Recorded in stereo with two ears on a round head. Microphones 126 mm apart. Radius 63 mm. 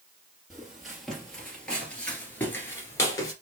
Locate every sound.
0.5 s footsteps: 5° right (ahead or behind), 2.5 m; by 3.3 s 25° left (ahead or behind), 1.8 m